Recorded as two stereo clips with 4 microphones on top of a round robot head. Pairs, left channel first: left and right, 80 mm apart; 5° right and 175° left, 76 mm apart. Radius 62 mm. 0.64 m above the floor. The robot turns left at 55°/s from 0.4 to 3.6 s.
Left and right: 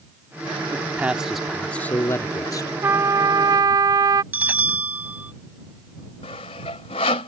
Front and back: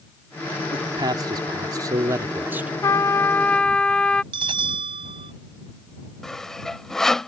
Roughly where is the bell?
Behind.